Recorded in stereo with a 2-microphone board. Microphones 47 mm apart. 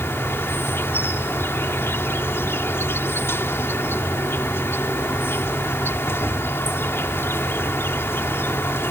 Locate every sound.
0.0 s an insect: 60° left (ahead or behind)